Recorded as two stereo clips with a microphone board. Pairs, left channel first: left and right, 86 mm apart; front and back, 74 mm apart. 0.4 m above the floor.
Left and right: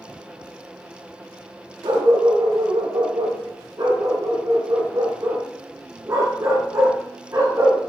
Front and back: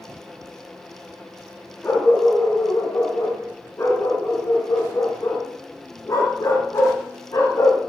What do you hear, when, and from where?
1.8 s a dog barking: 60° right, 6.5 m; by 7.8 s 35° right, 8 m